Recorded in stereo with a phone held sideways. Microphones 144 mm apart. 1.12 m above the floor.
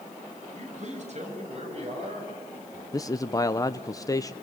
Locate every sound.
0.5 s a man speaking: 55° right (ahead or behind), 6.5 m; by 2.8 s 40° right (ahead or behind), 7.5 m
2.9 s a man speaking: 25° left (ahead or behind), 0.7 m